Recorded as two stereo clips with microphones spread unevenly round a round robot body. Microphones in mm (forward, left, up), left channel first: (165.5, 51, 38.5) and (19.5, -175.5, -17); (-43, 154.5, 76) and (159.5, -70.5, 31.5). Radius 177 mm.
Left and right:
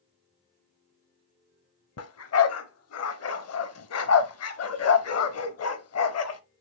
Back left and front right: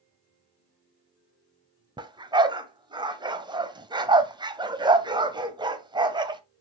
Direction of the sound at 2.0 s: 30° left.